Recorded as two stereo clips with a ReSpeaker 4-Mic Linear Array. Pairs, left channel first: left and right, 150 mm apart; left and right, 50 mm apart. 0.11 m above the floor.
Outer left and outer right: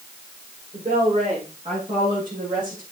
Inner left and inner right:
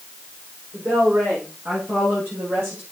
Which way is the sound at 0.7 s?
45° right (ahead or behind).